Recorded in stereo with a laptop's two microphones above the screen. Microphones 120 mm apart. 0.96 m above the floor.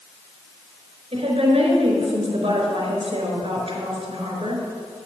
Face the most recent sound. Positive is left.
turn(degrees=-55)  # may be behind; listen again after turning